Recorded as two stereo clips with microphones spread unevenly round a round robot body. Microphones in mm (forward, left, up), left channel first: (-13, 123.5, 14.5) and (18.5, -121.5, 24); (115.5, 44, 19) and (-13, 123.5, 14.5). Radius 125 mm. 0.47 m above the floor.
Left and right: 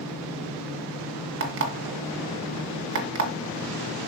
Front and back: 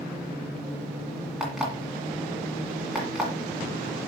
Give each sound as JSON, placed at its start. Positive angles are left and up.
{"t": 1.4, "sound": "an alarm clock", "azimuth_deg": -125, "distance_m": 2.0}